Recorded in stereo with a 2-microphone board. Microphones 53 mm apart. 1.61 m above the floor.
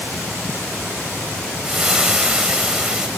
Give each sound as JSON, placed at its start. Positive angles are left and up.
{"t": 1.6, "sound": "frying", "side_deg": -15, "distance_m": 1.4}